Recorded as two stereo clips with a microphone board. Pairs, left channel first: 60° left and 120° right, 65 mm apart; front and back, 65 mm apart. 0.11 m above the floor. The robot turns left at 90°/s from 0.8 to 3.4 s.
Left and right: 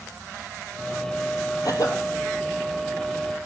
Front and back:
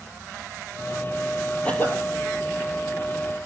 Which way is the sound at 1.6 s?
70° left.